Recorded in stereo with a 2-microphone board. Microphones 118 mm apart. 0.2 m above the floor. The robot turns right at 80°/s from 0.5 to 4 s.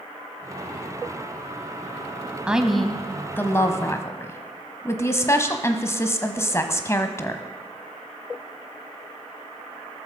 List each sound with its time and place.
2.5 s a woman speaking: 10° right (ahead or behind), 1.1 m; by 7.4 s 20° left (ahead or behind), 1.1 m